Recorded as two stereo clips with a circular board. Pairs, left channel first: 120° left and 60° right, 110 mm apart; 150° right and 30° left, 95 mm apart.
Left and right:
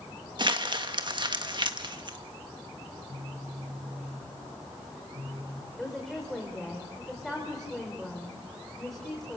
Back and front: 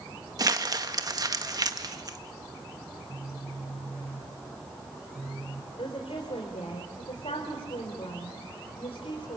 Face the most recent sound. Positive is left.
turn(degrees=-150)